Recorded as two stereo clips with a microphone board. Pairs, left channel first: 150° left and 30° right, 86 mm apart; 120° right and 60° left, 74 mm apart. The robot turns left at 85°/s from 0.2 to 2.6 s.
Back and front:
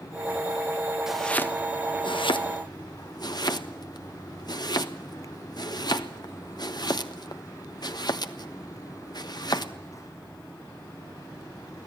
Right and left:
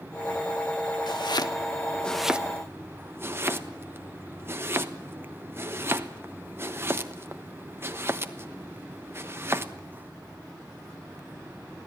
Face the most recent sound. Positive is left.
turn(degrees=115)